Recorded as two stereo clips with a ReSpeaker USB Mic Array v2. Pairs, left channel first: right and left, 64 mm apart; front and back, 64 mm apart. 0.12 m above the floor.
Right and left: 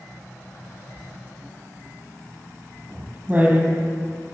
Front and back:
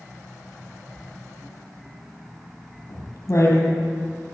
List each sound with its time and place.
1.0 s writing: 25° left, 3.5 m